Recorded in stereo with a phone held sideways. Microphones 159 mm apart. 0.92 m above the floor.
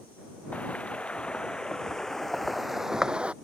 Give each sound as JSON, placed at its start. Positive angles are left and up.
{"t": 0.5, "sound": "footsteps", "side_deg": 10}